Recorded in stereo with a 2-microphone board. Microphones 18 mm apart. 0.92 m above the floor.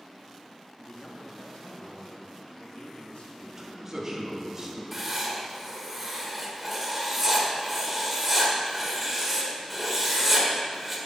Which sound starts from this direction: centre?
Writing, at 4.9 s.